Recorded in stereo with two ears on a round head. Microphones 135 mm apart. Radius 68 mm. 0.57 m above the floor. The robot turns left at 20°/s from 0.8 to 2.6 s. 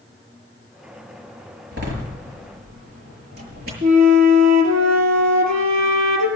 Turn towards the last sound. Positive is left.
turn(degrees=-55)  # may be behind; listen again after turning